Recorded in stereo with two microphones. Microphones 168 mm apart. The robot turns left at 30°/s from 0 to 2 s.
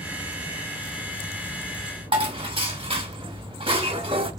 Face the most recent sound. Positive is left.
turn(degrees=-30)  # may be behind; listen again after turning